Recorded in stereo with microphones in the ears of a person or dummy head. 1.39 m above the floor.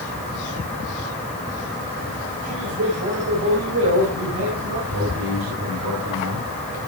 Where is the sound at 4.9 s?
80° right, 5 m.